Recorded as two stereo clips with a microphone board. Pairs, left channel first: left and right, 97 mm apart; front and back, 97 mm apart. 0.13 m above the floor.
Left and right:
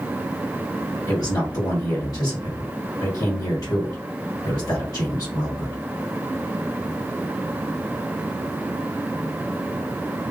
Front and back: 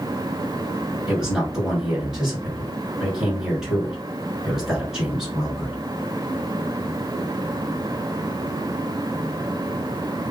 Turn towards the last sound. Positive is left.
turn(degrees=100)